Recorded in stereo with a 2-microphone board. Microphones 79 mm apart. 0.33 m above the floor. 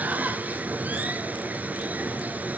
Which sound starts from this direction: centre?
Running water, at 0.0 s.